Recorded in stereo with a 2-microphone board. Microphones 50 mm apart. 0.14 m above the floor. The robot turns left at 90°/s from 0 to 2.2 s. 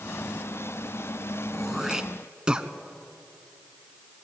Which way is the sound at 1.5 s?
5° left (ahead or behind).